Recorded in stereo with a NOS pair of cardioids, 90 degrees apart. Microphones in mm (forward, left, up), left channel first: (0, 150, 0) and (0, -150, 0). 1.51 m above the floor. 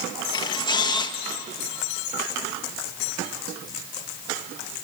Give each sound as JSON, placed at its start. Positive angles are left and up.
{"t": 0.3, "sound": "a camera shutter", "azimuth_deg": 15, "distance_m": 1.5}